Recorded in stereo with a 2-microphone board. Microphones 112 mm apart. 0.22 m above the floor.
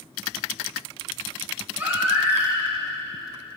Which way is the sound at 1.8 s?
15° right (ahead or behind).